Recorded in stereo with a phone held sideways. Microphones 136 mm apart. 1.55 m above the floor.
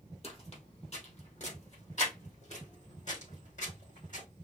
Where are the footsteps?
50° left (ahead or behind), 2.5 m; by 4.2 s 70° left (ahead or behind), 4 m.